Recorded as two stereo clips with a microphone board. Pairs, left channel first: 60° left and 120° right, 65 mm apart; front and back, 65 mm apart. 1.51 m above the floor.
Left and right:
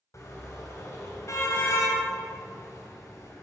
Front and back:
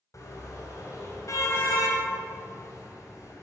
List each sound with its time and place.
0.1 s a car horn: 25° left, 3.5 m